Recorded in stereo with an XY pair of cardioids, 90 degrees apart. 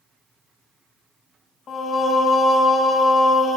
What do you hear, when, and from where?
1.7 s singing: 65° left, 1.0 m